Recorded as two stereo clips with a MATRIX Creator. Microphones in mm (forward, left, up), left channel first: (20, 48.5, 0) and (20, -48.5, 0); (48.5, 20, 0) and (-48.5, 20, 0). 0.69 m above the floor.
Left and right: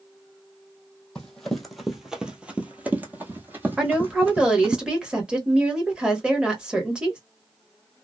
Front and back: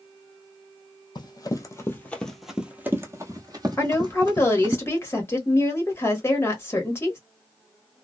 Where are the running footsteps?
10° left, 0.9 m; by 4.8 s 155° right, 1.5 m.